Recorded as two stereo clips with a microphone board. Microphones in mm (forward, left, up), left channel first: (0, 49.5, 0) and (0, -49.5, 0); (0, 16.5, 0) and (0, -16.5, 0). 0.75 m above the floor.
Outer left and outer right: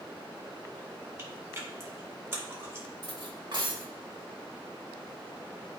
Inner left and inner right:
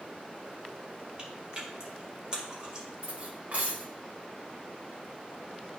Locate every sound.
1.2 s chewing: 30° right (ahead or behind), 2.5 m
3.0 s cutlery clinking: 50° right (ahead or behind), 1.4 m